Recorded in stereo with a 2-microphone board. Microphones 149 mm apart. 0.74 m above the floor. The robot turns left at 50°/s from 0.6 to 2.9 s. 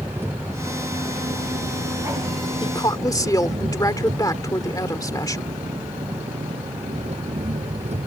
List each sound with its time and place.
0.0 s an engine running: 15° right; by 8.1 s 130° right
2.6 s a woman speaking: 40° left (ahead or behind); by 5.5 s 25° left (ahead or behind)